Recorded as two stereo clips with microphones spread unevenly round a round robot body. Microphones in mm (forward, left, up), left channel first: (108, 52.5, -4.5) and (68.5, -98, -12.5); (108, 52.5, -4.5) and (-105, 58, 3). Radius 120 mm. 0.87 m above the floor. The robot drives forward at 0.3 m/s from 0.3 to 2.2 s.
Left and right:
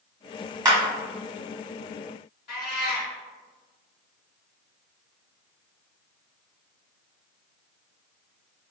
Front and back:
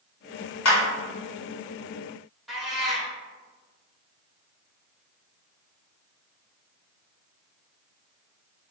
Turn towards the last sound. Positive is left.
turn(degrees=90)